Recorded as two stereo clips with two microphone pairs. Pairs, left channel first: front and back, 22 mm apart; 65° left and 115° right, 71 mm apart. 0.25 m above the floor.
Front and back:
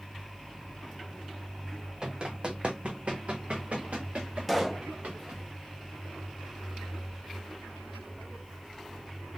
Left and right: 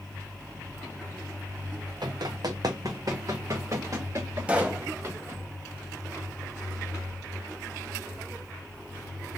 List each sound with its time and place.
2.0 s running footsteps: 125° right, 0.8 m; by 5.4 s 170° right, 2 m
4.5 s a pop: 105° right, 0.8 m